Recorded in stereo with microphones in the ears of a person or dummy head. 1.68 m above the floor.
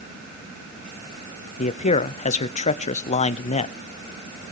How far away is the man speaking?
About 0.6 m.